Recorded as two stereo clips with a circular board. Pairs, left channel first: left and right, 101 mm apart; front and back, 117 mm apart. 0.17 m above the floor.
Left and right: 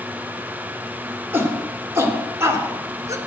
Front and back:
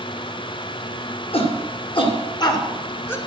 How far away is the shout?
About 2.5 m.